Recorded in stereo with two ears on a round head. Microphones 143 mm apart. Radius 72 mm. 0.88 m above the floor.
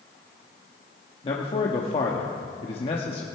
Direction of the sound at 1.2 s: 35° left (ahead or behind).